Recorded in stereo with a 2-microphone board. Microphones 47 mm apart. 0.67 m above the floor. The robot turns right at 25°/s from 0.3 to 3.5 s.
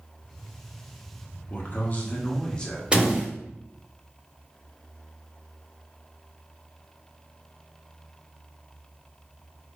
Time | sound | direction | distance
1.5 | a man speaking | 135° left | 1.1 m
2.9 | a door slam | 20° right (ahead or behind) | 1.2 m